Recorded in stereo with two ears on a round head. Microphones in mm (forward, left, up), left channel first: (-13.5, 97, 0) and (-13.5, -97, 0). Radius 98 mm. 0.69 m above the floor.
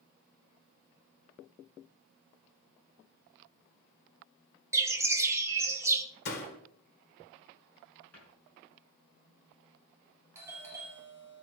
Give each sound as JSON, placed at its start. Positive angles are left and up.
{"t": 4.7, "sound": "a bird", "side_deg": -15, "distance_m": 1.1}
{"t": 6.2, "sound": "a door slam", "side_deg": 50, "distance_m": 1.9}
{"t": 8.1, "sound": "a cupboard door", "side_deg": 10, "distance_m": 6.0}
{"t": 10.3, "sound": "a doorbell", "side_deg": -15, "distance_m": 2.5}